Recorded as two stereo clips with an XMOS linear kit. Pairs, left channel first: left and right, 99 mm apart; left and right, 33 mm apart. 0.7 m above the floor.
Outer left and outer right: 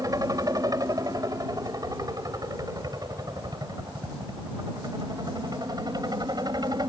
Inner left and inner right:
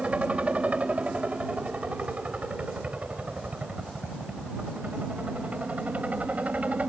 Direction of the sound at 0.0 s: 35° right (ahead or behind).